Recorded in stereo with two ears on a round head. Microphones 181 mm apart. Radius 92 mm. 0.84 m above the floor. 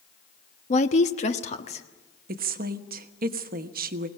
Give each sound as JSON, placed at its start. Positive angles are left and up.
{"t": 0.7, "sound": "a woman speaking", "side_deg": 35, "distance_m": 0.9}
{"t": 2.3, "sound": "a woman speaking", "side_deg": -50, "distance_m": 1.2}